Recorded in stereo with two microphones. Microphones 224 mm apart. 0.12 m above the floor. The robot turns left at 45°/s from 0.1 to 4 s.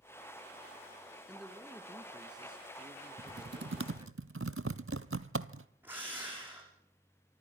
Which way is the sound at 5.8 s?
10° right (ahead or behind).